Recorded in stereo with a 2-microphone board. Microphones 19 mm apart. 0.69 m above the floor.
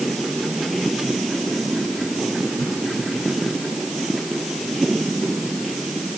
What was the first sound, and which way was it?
Only background noise.